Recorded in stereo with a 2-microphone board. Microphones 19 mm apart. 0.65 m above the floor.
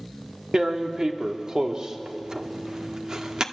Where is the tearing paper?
35° right (ahead or behind), 1.3 m.